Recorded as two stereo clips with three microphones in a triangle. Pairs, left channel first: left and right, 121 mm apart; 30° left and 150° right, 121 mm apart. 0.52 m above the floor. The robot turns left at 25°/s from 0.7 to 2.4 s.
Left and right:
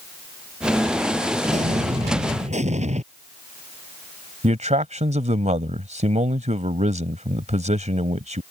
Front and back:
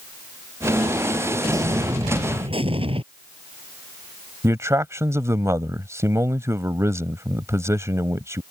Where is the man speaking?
85° right.